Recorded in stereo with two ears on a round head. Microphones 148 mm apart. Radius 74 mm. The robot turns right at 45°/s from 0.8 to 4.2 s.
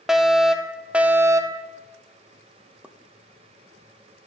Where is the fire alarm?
175° right, 0.6 m; by 1.7 s 135° right, 0.6 m.